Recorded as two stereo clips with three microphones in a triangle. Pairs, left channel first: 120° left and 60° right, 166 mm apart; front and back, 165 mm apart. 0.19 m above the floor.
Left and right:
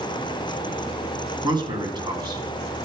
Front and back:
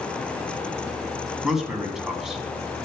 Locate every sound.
1.4 s a man speaking: 95° right, 1.8 m